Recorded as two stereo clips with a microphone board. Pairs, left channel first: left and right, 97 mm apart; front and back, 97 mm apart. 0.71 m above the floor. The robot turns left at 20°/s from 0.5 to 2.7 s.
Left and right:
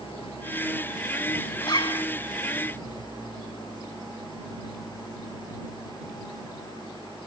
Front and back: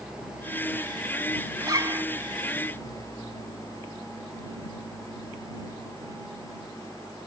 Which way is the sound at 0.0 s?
95° left.